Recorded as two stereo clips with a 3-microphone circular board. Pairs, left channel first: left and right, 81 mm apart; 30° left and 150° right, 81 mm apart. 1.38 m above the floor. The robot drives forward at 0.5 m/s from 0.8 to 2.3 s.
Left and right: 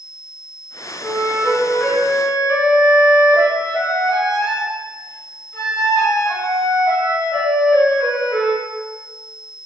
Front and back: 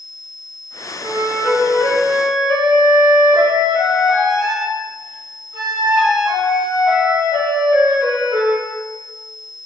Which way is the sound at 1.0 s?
150° left.